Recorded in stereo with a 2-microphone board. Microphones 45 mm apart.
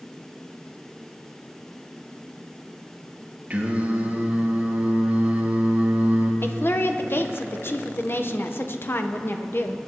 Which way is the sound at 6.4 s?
55° left (ahead or behind).